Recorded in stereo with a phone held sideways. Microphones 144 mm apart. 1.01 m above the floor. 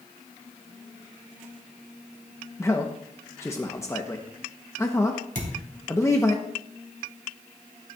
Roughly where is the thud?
Right.